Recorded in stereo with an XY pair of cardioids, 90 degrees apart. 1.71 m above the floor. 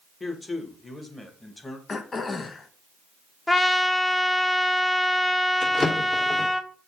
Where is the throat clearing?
45° left, 1.2 m.